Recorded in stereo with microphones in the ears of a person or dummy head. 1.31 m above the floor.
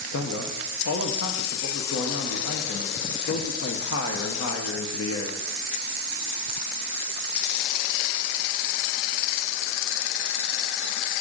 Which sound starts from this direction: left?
A man speaking, at 0.1 s.